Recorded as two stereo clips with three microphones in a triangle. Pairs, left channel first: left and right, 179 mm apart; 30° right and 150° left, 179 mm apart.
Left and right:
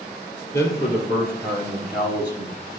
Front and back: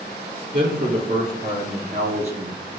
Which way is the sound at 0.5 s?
165° left.